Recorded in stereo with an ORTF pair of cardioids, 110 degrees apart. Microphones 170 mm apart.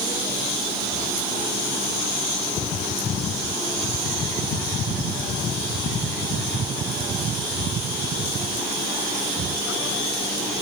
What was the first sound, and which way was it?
Only background noise.